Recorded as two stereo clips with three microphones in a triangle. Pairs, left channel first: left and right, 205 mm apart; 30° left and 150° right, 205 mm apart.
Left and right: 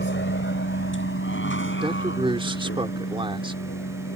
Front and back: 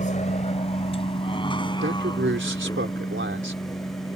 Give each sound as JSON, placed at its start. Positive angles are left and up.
{"t": 0.0, "sound": "a vehicle", "azimuth_deg": 75}
{"t": 1.8, "sound": "a man speaking", "azimuth_deg": -155}